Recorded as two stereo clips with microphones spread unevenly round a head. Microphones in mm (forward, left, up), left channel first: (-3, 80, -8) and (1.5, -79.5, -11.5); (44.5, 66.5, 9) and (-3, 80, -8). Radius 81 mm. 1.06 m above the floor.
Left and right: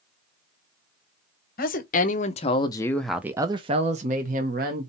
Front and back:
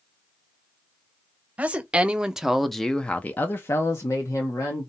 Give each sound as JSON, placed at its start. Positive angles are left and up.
{"t": 1.6, "sound": "a woman speaking", "azimuth_deg": 120, "distance_m": 1.0}